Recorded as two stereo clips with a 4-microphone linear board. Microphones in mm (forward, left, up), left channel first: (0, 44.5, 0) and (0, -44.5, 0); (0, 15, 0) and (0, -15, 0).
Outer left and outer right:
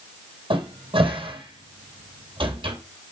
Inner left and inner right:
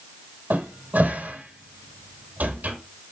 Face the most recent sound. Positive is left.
turn(degrees=-75)  # may be behind; listen again after turning